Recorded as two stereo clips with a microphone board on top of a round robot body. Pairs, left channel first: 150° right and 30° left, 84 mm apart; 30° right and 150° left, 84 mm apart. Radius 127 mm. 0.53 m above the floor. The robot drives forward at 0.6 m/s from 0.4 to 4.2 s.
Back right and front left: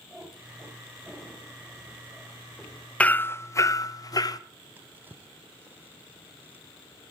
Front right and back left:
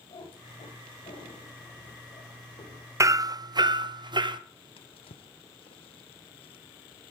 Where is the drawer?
40° right, 0.6 m.